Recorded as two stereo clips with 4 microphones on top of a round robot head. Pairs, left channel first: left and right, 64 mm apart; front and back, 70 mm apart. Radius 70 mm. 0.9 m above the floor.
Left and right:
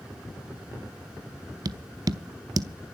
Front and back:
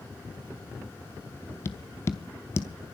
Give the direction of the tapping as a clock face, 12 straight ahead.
2 o'clock.